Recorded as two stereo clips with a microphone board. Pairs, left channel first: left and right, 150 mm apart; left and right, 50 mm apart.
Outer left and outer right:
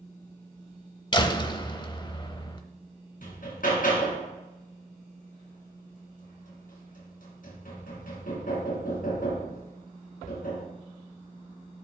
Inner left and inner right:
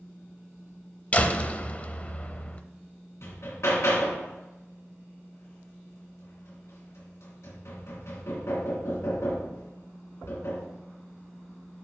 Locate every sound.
1.1 s a door slam: 30° left (ahead or behind), 0.7 m
3.2 s hammering: 70° left (ahead or behind), 2.5 m